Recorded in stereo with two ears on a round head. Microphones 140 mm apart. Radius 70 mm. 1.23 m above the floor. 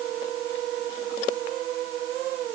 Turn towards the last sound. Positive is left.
No sound to turn to.